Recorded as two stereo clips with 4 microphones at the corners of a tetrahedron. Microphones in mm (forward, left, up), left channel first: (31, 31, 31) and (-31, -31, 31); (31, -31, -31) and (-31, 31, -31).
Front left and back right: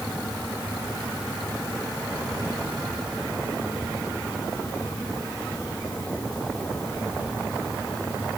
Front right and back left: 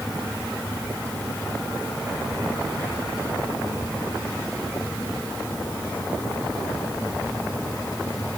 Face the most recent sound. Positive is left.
No sound to turn to.